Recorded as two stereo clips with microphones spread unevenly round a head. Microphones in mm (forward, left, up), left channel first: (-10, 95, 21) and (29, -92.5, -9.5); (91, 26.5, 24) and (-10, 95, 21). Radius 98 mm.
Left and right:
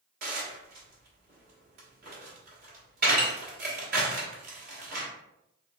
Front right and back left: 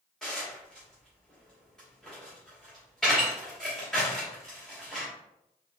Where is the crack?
No crack in this recording.